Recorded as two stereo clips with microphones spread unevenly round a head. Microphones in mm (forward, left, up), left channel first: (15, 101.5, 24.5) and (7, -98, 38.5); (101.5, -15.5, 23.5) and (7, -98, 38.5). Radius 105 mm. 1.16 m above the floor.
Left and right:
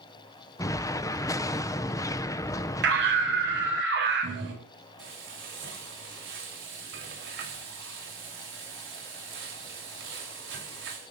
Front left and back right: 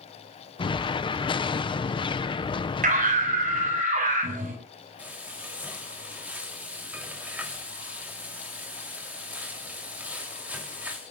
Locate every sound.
0.6 s an explosion: 25° left, 0.8 m
2.8 s a scream: 130° right, 8 m
5.0 s frying: 60° right, 5 m